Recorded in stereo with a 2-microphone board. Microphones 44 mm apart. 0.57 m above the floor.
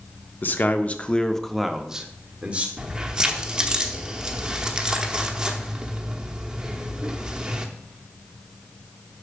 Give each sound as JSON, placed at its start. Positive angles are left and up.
{"t": 0.4, "sound": "a man speaking", "side_deg": 50, "distance_m": 0.9}
{"t": 2.8, "sound": "keys jangling", "side_deg": -20, "distance_m": 1.0}